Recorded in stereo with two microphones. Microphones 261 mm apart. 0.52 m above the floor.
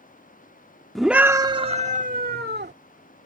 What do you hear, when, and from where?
0.9 s a scream: centre (ahead or behind); by 2.7 s 40° right (ahead or behind)